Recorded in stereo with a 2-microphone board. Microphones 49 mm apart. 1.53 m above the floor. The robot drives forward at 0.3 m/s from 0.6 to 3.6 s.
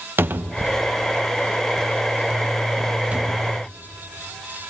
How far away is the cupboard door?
About 1.0 m.